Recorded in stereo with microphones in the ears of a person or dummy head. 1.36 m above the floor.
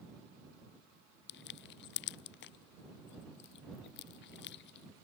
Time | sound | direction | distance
1.3 | crushing | 65° left (ahead or behind) | ?